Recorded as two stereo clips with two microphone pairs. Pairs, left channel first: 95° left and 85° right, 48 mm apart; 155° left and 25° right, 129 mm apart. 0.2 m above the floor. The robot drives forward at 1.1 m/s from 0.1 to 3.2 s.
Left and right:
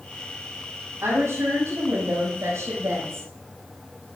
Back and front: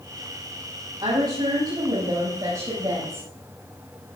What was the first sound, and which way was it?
A woman speaking, 70° right.